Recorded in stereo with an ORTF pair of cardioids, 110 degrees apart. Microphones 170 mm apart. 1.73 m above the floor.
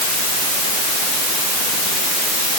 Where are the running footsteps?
No running footsteps in this recording.